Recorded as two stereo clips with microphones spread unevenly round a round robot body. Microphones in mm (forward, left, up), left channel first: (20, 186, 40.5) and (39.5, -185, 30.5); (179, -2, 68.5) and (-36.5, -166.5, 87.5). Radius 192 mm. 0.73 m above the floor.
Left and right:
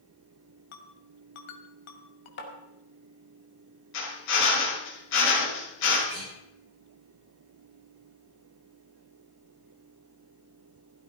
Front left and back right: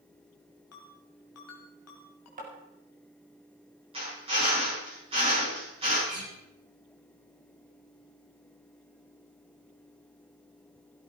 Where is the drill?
145° left, 8 m.